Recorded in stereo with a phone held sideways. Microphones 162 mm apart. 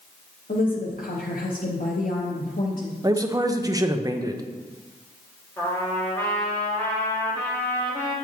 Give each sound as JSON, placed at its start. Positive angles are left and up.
{"t": 0.5, "sound": "a woman speaking", "side_deg": 60, "distance_m": 0.8}
{"t": 3.0, "sound": "a man speaking", "side_deg": -20, "distance_m": 0.6}
{"t": 5.6, "sound": "a trumpet", "side_deg": 15, "distance_m": 1.7}